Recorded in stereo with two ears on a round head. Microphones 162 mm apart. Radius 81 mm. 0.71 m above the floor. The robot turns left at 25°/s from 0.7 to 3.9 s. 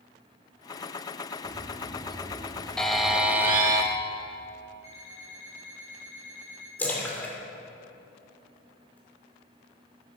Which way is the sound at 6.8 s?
10° left (ahead or behind).